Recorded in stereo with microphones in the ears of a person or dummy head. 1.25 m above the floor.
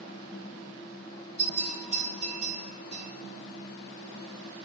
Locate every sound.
1.4 s a bell: 30° left (ahead or behind), 1.8 m